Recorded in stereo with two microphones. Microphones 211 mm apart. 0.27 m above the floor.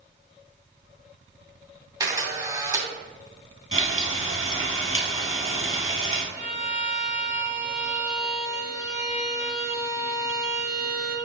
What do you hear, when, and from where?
2.0 s a camera shutter: 15° right (ahead or behind), 2 m
3.7 s frying: 85° left, 2 m
6.3 s a violin: 15° right (ahead or behind), 2 m